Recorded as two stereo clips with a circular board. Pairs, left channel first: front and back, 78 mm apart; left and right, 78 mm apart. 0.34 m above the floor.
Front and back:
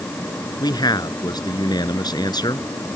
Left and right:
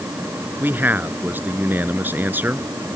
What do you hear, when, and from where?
0.6 s a man speaking: 25° right